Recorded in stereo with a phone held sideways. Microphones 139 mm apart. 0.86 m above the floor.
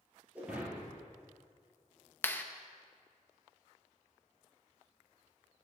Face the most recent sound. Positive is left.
turn(degrees=15)  # may be behind; listen again after turning